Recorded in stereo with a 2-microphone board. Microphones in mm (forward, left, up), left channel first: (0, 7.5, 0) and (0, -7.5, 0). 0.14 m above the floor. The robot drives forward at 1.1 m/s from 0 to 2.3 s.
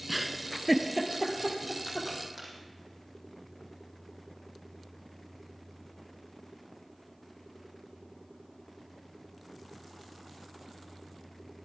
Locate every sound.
0.1 s a giggle: 10° right (ahead or behind), 0.6 m; by 2.5 s centre (ahead or behind), 3 m